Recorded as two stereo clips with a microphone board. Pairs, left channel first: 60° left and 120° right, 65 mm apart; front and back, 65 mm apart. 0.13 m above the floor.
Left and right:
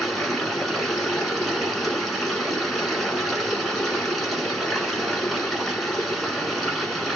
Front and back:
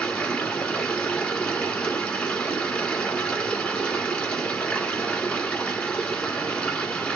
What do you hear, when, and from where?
0.0 s running water: 20° right, 1.3 m